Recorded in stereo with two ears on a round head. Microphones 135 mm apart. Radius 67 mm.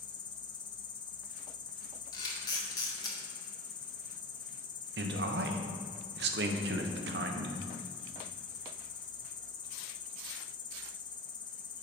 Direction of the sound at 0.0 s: 30° left (ahead or behind).